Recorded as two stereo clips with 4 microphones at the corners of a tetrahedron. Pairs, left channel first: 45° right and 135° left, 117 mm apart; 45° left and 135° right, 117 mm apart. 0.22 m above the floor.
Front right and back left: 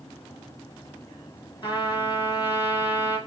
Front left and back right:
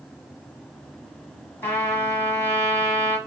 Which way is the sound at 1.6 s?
15° right.